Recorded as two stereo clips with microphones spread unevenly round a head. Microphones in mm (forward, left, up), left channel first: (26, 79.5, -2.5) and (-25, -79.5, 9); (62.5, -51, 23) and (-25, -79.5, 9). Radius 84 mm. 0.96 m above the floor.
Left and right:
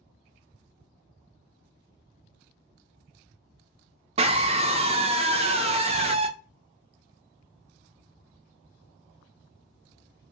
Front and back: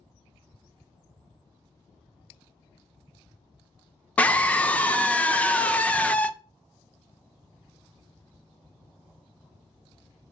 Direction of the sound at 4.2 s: 60° right.